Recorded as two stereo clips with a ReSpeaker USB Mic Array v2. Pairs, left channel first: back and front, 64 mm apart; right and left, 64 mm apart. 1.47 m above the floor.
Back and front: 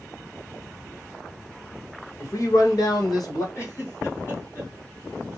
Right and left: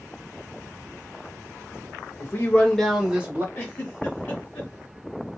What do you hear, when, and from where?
2.2 s a man speaking: 140° right, 1.2 m; by 3.5 s 150° left, 1.2 m
3.5 s a giggle: 150° right, 1.8 m